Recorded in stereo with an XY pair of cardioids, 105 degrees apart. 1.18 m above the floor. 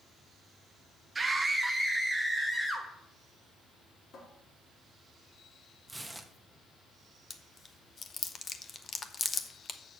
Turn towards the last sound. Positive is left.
turn(degrees=40)